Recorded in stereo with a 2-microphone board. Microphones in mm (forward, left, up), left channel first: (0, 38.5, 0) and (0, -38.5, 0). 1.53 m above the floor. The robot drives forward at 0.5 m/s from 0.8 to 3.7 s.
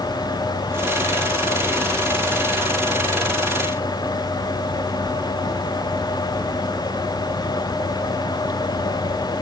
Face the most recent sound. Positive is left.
No sound to turn to.